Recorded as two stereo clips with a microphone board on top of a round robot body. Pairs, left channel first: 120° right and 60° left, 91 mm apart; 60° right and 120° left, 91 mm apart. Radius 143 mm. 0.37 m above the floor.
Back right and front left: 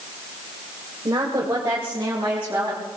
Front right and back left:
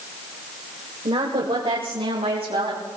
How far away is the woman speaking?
About 2 m.